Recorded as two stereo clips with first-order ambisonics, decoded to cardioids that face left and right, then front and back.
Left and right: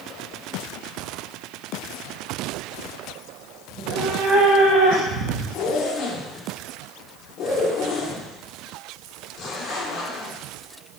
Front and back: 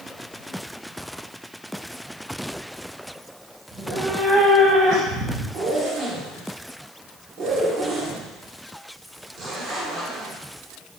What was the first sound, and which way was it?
A cat meowing, 105° right.